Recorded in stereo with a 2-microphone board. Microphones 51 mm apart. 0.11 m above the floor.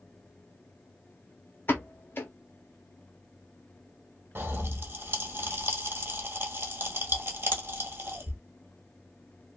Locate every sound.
1.7 s a pop: 45° left (ahead or behind), 1.0 m
4.3 s a pop: 45° right (ahead or behind), 1.2 m